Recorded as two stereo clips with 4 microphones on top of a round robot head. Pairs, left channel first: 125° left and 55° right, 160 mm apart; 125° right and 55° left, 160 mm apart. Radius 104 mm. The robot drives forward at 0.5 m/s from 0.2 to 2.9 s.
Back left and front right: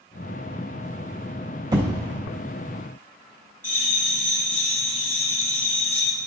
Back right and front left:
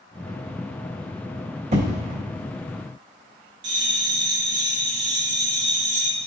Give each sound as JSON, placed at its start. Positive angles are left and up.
{"t": 1.7, "sound": "an explosion", "azimuth_deg": 10, "distance_m": 1.8}
{"t": 3.6, "sound": "a bell", "azimuth_deg": 45, "distance_m": 1.3}